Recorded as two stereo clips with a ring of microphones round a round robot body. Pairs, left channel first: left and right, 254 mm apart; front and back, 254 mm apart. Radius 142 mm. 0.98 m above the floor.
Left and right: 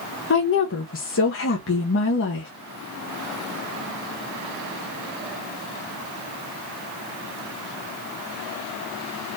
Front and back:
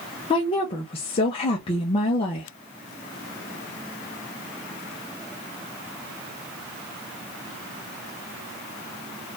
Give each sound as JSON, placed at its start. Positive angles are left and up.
{"t": 0.3, "sound": "a woman speaking", "azimuth_deg": 65, "distance_m": 0.9}